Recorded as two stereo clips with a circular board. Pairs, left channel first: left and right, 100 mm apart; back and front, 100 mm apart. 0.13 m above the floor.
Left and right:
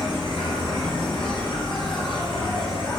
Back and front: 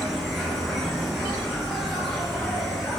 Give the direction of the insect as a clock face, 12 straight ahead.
9 o'clock.